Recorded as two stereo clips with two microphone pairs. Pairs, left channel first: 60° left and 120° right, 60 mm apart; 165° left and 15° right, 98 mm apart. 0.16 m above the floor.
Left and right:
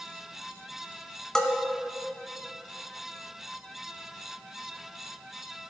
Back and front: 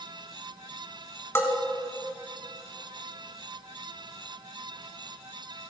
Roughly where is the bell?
Behind left.